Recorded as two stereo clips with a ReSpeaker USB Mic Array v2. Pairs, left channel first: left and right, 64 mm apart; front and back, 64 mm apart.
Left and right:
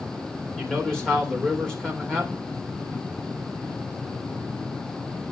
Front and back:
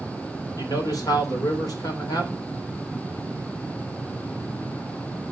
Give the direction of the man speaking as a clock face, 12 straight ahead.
12 o'clock.